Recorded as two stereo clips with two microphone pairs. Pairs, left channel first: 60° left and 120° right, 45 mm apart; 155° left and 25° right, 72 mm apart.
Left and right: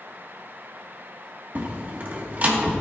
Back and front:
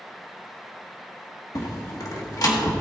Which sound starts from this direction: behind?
A door slam, at 1.6 s.